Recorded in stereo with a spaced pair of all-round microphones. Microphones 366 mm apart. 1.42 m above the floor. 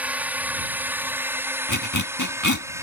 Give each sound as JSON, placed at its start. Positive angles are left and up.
{"t": 0.0, "sound": "a drone", "side_deg": -5}
{"t": 1.7, "sound": "a zipper", "side_deg": 50}